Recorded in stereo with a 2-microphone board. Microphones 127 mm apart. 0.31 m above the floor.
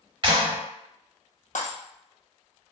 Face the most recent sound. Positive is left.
turn(degrees=85)